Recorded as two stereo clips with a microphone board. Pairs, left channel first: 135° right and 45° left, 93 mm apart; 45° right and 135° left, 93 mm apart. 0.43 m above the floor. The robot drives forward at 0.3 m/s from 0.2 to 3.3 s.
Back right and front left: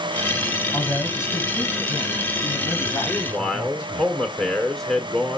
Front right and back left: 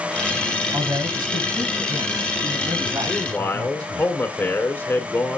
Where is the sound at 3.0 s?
50° right, 1.5 m; by 5.4 s 60° right, 1.5 m.